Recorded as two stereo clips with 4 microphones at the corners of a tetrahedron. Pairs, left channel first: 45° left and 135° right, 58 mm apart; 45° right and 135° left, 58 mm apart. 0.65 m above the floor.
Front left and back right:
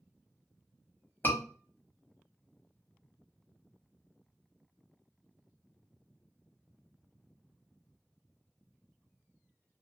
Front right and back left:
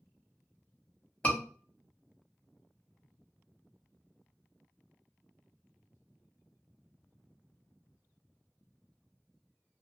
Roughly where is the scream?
Ahead.